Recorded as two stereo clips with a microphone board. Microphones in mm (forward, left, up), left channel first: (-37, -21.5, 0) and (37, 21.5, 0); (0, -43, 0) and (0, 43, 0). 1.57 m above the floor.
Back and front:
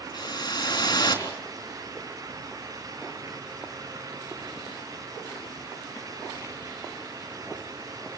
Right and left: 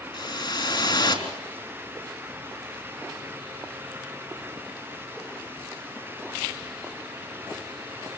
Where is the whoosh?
115° right, 4 m.